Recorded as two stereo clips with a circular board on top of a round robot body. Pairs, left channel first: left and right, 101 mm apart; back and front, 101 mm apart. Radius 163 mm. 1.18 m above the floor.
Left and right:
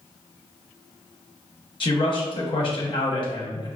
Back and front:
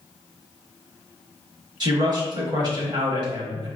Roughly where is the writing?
No writing in this recording.